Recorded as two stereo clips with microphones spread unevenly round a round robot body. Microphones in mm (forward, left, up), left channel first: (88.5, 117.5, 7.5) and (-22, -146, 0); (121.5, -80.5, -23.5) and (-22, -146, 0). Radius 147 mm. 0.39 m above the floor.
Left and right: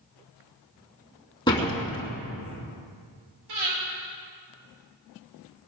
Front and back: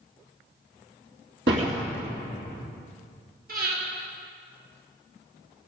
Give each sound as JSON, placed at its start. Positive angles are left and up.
{"t": 1.5, "sound": "a door slam", "azimuth_deg": 145, "distance_m": 2.5}
{"t": 3.5, "sound": "breathing", "azimuth_deg": -125, "distance_m": 5.5}